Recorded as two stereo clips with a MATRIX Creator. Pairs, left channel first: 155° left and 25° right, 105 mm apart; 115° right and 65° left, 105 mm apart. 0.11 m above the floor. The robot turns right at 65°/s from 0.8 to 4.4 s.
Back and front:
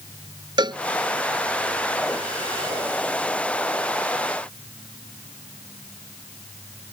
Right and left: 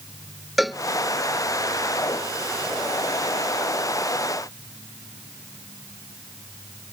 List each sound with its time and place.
0.6 s a cowbell: 20° right